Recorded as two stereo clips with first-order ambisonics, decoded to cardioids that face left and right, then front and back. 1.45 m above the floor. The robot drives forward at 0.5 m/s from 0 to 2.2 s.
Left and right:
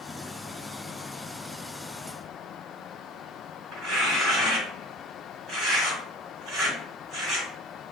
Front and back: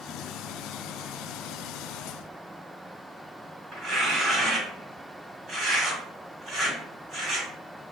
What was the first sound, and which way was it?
Tearing paper, 130° right.